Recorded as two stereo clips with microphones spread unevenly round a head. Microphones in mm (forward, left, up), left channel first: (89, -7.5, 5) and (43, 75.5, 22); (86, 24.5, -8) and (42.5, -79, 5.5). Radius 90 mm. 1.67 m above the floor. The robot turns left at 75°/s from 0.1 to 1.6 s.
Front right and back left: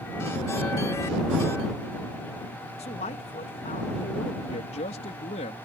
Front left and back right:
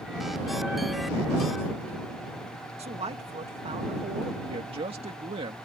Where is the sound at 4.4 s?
80° right.